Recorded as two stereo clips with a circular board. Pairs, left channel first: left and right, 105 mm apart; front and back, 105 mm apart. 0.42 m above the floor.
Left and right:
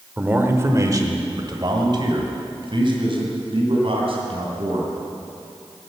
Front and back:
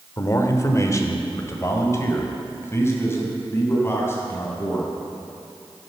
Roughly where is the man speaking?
Ahead right.